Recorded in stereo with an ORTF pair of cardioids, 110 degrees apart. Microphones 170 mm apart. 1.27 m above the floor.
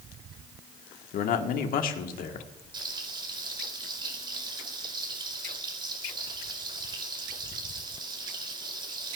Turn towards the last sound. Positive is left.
turn(degrees=-30)